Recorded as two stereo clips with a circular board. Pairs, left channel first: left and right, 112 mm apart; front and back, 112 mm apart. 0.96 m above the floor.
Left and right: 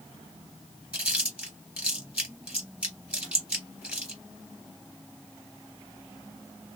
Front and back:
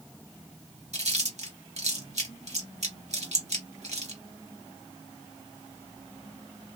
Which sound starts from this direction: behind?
Chewing, at 0.9 s.